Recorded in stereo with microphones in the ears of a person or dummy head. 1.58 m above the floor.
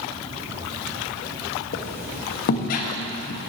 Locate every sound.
1.7 s a squeak: 50° left (ahead or behind), 1.2 m